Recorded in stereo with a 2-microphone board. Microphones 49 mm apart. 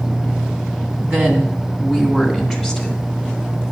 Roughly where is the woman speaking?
Right.